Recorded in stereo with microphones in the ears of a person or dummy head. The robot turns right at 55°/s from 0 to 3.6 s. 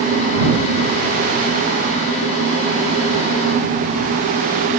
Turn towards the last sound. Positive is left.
No sound to turn to.